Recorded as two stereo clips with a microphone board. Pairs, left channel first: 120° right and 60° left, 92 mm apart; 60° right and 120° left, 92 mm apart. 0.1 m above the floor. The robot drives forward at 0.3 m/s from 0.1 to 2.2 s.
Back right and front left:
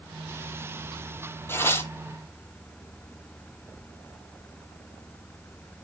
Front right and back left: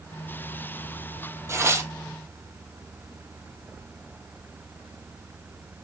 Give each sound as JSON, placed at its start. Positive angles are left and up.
{"t": 1.5, "sound": "tearing paper", "azimuth_deg": 175, "distance_m": 0.7}